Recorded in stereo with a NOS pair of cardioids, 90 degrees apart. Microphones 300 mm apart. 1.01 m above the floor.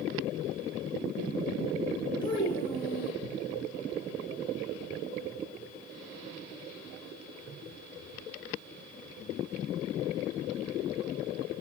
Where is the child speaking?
15° left, 3.5 m.